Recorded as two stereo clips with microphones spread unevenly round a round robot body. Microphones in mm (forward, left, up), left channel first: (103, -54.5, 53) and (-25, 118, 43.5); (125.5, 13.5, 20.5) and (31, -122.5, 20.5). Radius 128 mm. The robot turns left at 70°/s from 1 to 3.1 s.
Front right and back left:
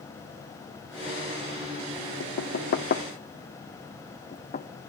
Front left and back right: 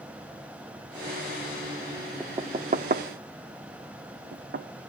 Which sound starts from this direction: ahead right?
Knocking, at 2.2 s.